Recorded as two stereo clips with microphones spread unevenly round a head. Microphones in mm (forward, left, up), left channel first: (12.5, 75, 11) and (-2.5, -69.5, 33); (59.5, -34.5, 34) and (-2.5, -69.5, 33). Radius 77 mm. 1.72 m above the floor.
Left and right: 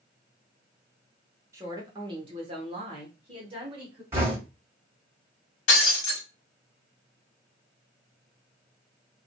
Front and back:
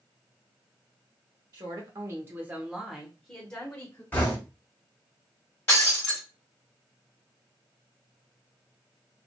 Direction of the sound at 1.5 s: 155° right.